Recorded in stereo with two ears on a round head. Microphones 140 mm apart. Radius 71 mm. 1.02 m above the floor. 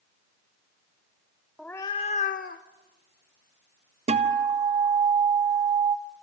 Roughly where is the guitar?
Right.